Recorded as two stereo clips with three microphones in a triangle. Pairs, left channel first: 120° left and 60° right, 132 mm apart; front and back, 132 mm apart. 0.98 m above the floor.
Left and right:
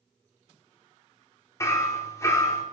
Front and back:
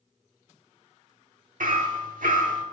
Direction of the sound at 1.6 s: 175° right.